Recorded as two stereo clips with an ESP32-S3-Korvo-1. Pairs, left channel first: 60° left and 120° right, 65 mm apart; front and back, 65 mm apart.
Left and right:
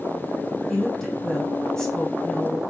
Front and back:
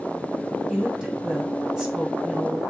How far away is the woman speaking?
About 1.0 m.